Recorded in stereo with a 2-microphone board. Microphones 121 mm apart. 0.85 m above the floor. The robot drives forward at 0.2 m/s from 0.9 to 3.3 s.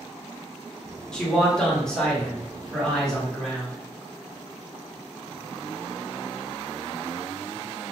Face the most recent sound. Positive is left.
turn(degrees=5)  # may be behind; listen again after turning